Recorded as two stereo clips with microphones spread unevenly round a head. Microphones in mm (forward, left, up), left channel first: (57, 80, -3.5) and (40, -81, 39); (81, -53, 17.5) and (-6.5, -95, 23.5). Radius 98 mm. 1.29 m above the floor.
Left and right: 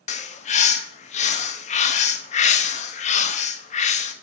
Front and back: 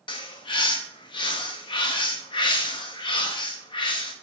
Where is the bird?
40° left, 0.7 m.